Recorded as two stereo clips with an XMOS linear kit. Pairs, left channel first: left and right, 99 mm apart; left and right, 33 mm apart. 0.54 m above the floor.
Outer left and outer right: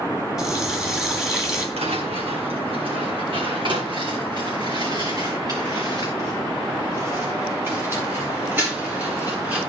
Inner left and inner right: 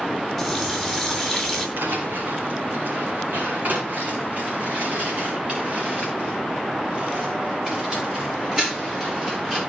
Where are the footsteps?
75° right (ahead or behind), 2.5 m; by 9.6 s 15° right (ahead or behind), 5.5 m.